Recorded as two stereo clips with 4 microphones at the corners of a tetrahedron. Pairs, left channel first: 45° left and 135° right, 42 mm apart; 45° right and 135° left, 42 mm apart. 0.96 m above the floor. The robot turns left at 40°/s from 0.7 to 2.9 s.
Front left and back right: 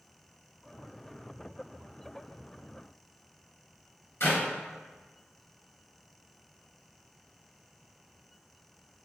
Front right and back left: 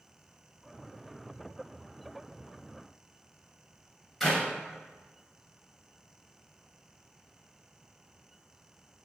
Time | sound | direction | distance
4.2 | a clap | 40° left | 0.9 m